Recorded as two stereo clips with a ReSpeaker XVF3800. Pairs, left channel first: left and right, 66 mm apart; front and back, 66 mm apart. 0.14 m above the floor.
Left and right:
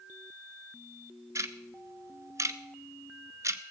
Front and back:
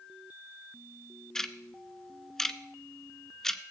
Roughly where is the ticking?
Right.